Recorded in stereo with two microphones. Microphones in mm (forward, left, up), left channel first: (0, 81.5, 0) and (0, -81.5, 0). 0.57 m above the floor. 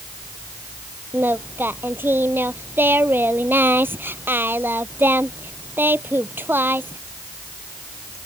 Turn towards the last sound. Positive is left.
turn(degrees=-10)  # may be behind; listen again after turning